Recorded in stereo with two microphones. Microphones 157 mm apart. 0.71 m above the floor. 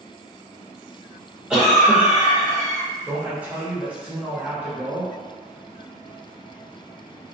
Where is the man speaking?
10° right (ahead or behind), 0.9 m.